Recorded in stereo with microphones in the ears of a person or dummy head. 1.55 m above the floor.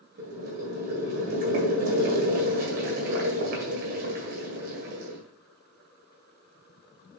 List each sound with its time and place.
0.2 s boiling: 45° right (ahead or behind), 1.9 m